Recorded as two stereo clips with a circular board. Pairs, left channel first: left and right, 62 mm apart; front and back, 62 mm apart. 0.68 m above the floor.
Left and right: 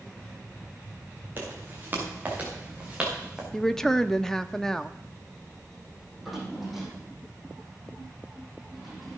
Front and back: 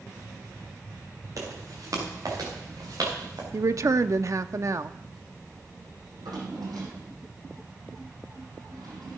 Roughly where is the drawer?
Behind.